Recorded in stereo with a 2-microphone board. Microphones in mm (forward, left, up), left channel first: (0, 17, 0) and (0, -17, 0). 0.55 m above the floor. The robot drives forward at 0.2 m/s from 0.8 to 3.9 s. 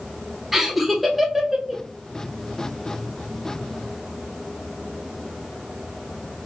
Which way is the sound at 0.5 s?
5° right (ahead or behind).